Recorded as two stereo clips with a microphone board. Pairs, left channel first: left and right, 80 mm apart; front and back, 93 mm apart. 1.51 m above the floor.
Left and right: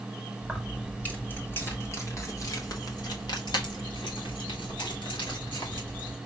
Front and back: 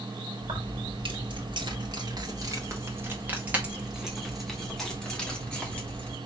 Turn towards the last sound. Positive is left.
turn(degrees=70)